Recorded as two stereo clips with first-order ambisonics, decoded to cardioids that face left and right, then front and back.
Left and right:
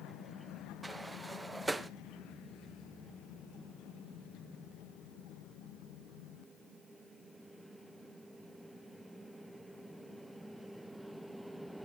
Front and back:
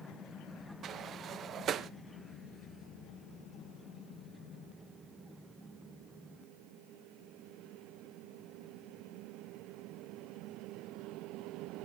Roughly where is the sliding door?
Behind.